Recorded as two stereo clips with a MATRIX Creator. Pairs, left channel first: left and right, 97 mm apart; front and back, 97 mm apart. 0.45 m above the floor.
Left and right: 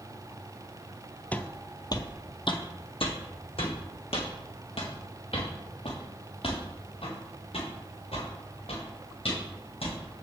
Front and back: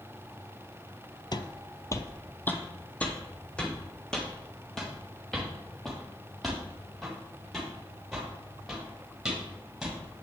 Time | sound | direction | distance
1.3 | footsteps | 20° left | 0.6 m